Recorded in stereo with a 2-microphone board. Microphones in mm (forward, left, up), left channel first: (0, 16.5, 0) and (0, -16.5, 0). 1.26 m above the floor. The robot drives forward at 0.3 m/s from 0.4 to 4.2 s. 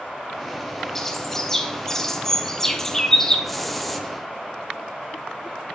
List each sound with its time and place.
0.9 s a bird: 15° left (ahead or behind), 0.8 m
3.5 s a hiss: 5° left (ahead or behind), 0.6 m